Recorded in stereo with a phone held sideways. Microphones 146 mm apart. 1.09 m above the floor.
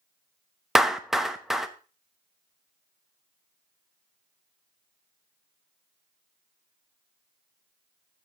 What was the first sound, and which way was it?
A clap, centre (ahead or behind).